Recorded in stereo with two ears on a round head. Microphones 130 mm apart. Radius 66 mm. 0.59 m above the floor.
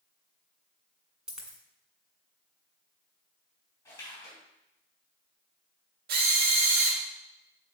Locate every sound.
1.3 s a dropped coin: 5° right (ahead or behind), 1.8 m
3.9 s a splash: 20° left (ahead or behind), 4 m
6.1 s a drill: 70° right (ahead or behind), 1.4 m